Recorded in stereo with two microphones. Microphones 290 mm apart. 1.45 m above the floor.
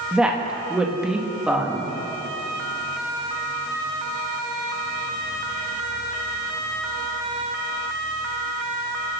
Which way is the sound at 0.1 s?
5° right (ahead or behind).